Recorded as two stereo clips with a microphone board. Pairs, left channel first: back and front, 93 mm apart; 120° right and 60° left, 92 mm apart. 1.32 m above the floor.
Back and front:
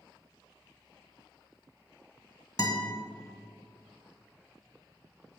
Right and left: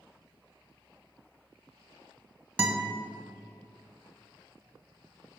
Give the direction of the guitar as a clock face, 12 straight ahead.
7 o'clock.